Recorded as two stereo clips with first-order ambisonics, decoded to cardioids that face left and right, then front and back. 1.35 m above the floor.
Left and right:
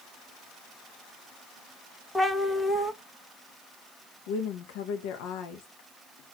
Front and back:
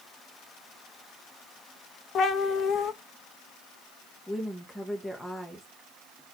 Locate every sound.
2.1 s a cat meowing: 15° left, 0.6 m
4.3 s a woman speaking: 85° left, 1.3 m